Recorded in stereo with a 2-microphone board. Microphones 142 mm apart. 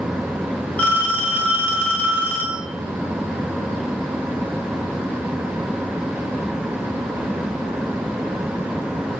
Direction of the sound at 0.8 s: 10° left (ahead or behind).